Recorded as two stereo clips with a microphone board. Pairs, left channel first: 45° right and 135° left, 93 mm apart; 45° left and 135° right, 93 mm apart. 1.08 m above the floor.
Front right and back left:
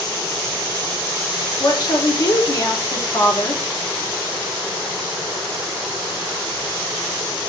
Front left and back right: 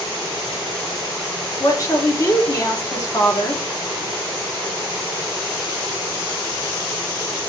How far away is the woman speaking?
About 1.3 m.